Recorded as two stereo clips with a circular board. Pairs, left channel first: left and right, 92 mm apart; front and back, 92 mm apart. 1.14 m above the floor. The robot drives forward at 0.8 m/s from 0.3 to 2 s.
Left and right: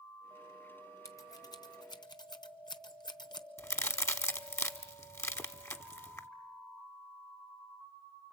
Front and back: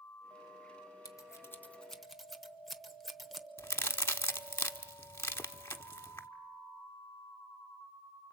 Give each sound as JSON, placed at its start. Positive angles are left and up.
{"t": 1.1, "sound": "scissors", "azimuth_deg": 45, "distance_m": 1.2}
{"t": 3.6, "sound": "a crack", "azimuth_deg": 45, "distance_m": 0.9}